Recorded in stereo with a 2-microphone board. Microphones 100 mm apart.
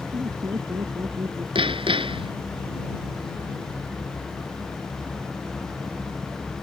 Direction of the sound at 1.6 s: 65° right (ahead or behind).